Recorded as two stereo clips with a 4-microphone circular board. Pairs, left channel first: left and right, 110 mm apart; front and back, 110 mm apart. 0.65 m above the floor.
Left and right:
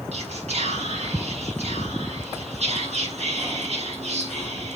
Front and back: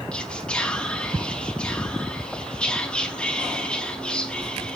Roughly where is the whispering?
Right.